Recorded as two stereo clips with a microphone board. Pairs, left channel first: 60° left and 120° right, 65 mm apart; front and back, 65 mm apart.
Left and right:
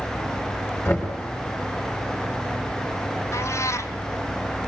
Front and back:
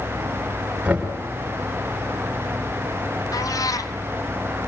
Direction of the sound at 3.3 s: 20° left.